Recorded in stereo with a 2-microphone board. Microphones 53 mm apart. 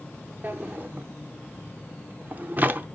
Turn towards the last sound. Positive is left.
turn(degrees=-40)  # may be behind; listen again after turning